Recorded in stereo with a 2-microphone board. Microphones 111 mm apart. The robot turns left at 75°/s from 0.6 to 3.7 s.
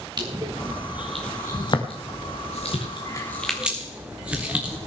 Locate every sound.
0.2 s crushing: 40° right (ahead or behind), 2 m; by 4.8 s 10° right (ahead or behind), 2 m